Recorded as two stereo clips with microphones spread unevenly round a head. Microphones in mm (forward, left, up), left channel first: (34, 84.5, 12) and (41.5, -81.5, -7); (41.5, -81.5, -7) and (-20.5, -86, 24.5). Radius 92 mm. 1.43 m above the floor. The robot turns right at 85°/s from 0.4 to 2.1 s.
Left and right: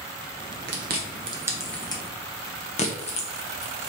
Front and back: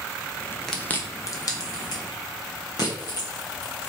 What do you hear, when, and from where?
0.7 s chewing: 80° right, 1.1 m; by 3.9 s 40° left, 1.1 m